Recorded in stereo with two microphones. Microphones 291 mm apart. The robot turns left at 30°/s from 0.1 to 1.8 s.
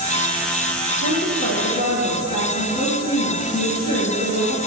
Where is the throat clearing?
I don't hear throat clearing.